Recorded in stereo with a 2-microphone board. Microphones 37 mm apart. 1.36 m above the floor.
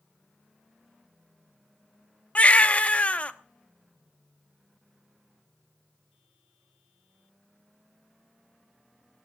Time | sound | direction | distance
2.4 | a baby crying | 35° left (ahead or behind) | 0.9 m